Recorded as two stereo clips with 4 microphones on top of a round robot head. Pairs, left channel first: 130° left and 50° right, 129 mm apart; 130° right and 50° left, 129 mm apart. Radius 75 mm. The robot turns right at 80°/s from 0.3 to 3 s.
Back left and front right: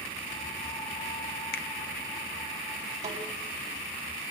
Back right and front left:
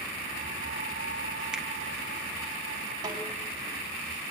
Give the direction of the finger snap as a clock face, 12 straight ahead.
8 o'clock.